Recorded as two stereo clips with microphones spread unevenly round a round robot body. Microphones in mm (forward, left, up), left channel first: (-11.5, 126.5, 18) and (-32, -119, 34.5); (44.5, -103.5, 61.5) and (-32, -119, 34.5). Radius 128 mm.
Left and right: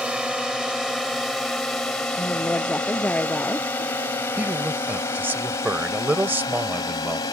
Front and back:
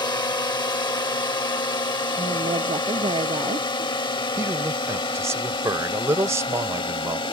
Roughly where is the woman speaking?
Behind.